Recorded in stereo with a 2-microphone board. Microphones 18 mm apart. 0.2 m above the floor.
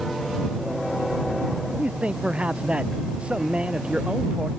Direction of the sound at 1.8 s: 70° right (ahead or behind).